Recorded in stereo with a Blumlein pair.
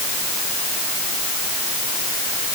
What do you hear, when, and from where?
Only background noise.